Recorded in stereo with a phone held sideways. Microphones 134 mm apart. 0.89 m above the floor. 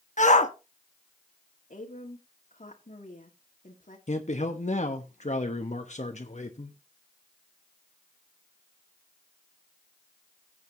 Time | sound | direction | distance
0.2 | a shout | 65° left (ahead or behind) | 1.4 m
1.7 | a woman speaking | 75° left (ahead or behind) | 1.9 m
4.1 | a man speaking | 60° left (ahead or behind) | 1.1 m